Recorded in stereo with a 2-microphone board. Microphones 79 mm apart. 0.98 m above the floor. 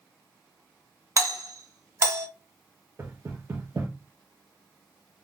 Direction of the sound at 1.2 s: 40° right (ahead or behind).